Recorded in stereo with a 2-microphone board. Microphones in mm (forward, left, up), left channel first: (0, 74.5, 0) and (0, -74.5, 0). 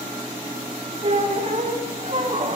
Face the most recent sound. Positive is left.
turn(degrees=-45)  # may be behind; listen again after turning